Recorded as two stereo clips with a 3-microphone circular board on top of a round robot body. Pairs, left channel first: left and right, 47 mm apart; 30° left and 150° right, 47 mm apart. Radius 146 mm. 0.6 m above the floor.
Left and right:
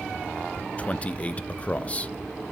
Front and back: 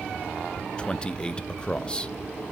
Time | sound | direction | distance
0.8 | a man speaking | 75° left | 0.6 m